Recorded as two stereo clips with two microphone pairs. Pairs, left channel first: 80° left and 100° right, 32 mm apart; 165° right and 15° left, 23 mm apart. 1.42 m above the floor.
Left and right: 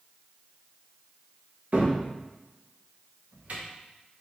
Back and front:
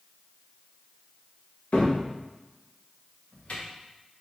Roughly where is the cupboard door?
Behind right.